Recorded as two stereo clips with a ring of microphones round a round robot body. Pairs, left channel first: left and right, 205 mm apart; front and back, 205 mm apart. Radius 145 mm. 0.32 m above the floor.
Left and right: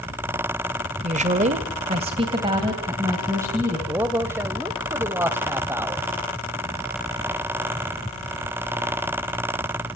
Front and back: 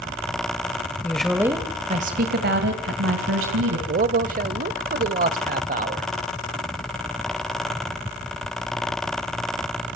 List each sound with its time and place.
1.0 s a woman speaking: 75° right, 1.7 m; by 3.8 s 170° right, 3.5 m
3.9 s a man speaking: 165° right, 1.1 m